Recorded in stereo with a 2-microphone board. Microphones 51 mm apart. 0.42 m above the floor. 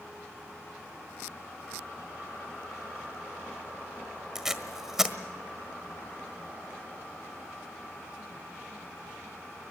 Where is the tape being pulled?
10° right (ahead or behind), 1.4 m.